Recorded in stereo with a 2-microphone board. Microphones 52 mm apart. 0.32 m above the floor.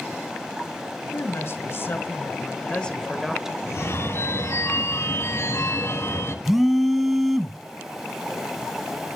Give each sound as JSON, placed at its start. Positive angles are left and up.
{"t": 1.1, "sound": "a woman speaking", "side_deg": 60, "distance_m": 2.0}
{"t": 3.7, "sound": "a phone ringing", "side_deg": 60, "distance_m": 1.8}
{"t": 6.5, "sound": "a phone buzzing", "side_deg": -5, "distance_m": 0.9}